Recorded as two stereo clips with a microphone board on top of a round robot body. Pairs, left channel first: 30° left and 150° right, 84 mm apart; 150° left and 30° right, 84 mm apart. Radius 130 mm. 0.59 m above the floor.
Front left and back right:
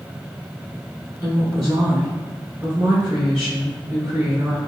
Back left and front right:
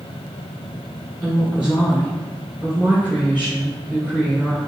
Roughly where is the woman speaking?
Right.